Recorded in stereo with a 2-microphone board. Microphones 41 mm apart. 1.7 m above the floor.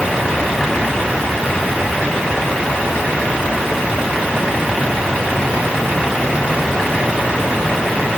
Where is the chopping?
I don't hear chopping.